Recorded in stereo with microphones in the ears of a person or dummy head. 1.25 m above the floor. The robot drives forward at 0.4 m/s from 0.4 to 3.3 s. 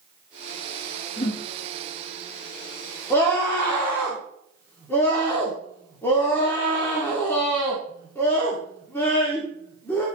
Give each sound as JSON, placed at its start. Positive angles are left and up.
{"t": 1.2, "sound": "a whoosh", "side_deg": 35, "distance_m": 2.0}
{"t": 3.1, "sound": "a scream", "side_deg": 15, "distance_m": 2.5}